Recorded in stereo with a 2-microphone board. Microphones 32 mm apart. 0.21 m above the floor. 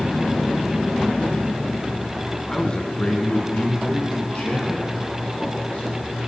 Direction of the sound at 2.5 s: 20° left (ahead or behind).